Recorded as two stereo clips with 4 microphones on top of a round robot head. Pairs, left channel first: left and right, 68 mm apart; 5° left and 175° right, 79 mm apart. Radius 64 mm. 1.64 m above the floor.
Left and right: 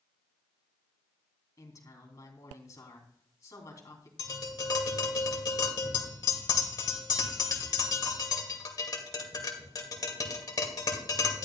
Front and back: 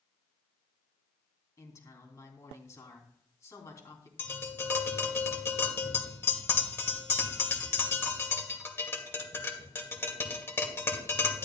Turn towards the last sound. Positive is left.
turn(degrees=65)